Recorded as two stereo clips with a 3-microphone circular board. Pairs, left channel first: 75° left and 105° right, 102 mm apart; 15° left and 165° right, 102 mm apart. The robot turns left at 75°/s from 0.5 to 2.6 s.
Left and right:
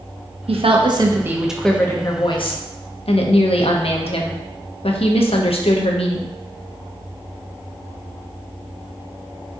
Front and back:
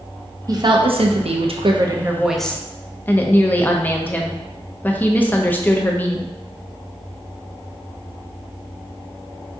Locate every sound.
0.5 s a woman speaking: 115° right, 0.5 m; by 6.4 s 90° left, 0.5 m